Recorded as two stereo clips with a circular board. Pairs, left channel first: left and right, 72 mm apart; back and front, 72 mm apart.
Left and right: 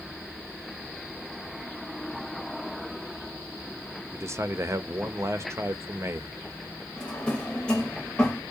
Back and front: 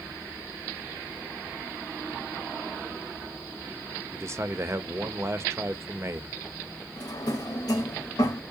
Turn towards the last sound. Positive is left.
turn(degrees=165)